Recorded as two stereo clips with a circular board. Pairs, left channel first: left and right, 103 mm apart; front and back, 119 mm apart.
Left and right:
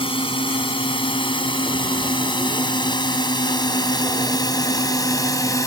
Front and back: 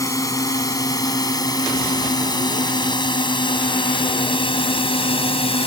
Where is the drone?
60° left; by 5.7 s 35° left.